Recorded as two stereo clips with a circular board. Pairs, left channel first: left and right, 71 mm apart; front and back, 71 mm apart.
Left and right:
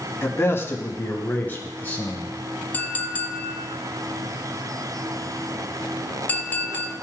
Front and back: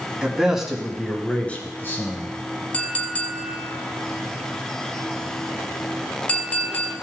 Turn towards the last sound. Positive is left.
turn(degrees=50)